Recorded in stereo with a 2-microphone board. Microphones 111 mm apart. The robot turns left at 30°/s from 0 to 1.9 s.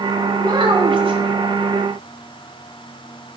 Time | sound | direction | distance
0.4 | a child speaking | 40° right (ahead or behind) | 1.0 m